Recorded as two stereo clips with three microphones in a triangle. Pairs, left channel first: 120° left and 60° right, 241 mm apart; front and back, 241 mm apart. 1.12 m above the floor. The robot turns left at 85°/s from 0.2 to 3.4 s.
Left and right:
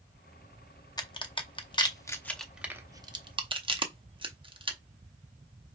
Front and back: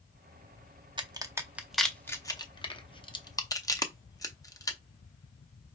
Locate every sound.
1.0 s a crack: 160° left, 0.6 m; by 4.8 s 50° right, 0.6 m